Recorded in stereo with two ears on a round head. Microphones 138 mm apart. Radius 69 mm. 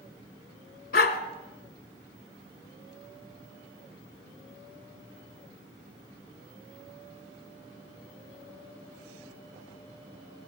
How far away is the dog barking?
About 1.3 m.